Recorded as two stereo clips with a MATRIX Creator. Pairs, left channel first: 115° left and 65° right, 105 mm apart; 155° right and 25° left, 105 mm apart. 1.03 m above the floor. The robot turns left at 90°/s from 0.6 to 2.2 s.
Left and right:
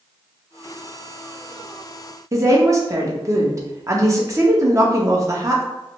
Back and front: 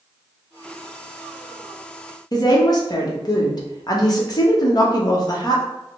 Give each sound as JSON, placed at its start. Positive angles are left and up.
{"t": 2.3, "sound": "a woman speaking", "azimuth_deg": -120, "distance_m": 1.0}